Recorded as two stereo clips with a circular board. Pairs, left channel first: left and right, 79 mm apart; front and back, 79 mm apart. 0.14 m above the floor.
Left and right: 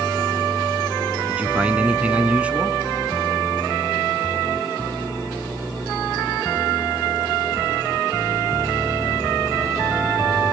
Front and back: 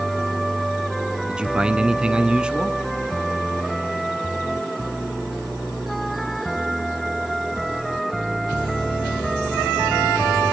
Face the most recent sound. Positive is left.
turn(degrees=-125)